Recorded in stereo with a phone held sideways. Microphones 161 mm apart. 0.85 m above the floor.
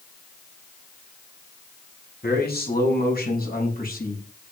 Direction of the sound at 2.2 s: 75° left (ahead or behind).